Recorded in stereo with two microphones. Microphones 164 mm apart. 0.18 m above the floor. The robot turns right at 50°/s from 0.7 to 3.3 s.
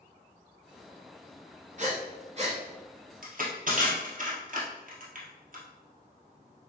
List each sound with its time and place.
1.8 s breathing: 50° right (ahead or behind), 1.2 m; by 2.6 s 35° right (ahead or behind), 1.2 m
3.2 s crushing: 60° right (ahead or behind), 1.5 m; by 5.6 s 55° right (ahead or behind), 1.5 m